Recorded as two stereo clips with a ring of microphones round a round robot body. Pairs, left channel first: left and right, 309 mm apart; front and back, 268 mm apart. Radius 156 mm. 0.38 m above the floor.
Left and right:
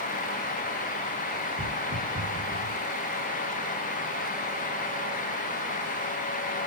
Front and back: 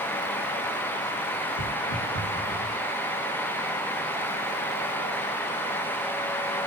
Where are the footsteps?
5° left, 3.5 m; by 2.7 s 10° left, 2.5 m.